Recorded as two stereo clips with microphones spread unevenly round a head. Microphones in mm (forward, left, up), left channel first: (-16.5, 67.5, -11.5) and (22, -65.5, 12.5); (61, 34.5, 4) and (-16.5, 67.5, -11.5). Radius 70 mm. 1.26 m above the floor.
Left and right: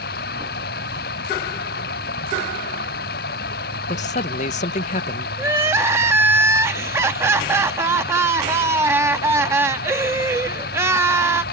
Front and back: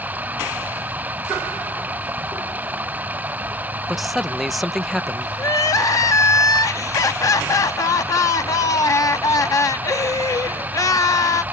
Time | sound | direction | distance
0.0 | running water | 85° left | ?
3.9 | a man speaking | 70° left | ?
5.4 | crying | 20° right | ?